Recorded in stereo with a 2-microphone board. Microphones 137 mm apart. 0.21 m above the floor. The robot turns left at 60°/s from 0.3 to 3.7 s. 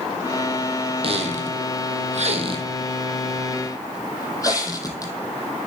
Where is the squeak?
50° right (ahead or behind), 1.1 m; by 5.1 s 25° left (ahead or behind), 1.1 m.